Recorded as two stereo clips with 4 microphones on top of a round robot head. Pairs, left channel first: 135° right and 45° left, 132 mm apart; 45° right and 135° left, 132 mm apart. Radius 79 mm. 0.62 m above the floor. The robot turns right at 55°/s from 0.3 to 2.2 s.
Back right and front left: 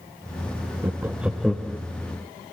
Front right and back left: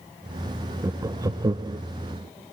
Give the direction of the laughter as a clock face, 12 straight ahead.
9 o'clock.